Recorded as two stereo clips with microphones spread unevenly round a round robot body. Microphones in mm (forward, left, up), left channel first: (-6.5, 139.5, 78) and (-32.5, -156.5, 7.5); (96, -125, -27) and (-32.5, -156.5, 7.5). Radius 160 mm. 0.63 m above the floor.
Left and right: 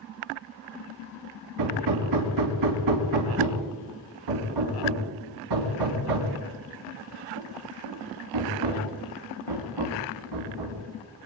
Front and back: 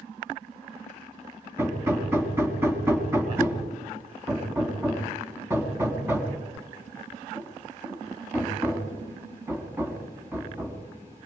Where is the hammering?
95° right, 4 m.